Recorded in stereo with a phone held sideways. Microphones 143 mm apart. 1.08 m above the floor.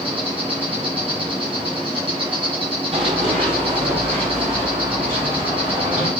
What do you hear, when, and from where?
0.0 s an insect: 40° right (ahead or behind), 1.8 m
2.9 s running footsteps: 40° right (ahead or behind), 2.5 m; by 6.1 s 50° right (ahead or behind), 5.5 m